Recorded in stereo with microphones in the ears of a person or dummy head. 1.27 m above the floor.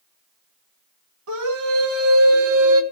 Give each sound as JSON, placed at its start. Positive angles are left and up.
{"t": 1.3, "sound": "a scream", "side_deg": -85, "distance_m": 3.0}